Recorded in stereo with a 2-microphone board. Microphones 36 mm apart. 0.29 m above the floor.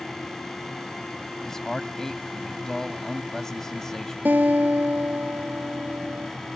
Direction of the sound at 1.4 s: 15° left (ahead or behind).